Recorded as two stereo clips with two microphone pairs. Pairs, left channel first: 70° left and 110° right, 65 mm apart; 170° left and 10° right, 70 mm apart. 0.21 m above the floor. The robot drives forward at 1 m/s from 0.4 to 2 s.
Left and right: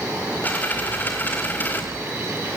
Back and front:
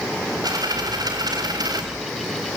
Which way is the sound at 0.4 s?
10° left.